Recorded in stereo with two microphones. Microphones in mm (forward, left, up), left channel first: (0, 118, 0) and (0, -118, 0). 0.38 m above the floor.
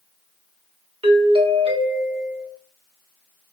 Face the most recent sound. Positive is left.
turn(degrees=-25)  # may be behind; listen again after turning